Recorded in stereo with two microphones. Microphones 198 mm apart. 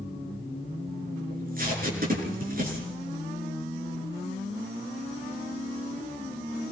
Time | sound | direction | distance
1.3 | tape being pulled | 50° right (ahead or behind) | 5.5 m